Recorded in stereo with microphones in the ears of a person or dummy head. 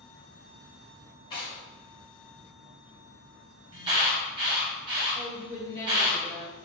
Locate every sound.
1.3 s tearing paper: 20° left (ahead or behind), 0.8 m
3.7 s an alarm: 30° right (ahead or behind), 0.9 m
5.2 s a woman speaking: 60° right (ahead or behind), 1.3 m